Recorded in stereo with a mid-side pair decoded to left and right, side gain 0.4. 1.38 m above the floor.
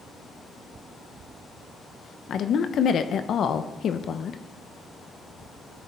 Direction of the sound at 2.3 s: 60° left.